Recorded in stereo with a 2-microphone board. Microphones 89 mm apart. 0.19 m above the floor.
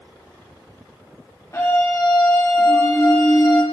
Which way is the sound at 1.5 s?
40° left (ahead or behind).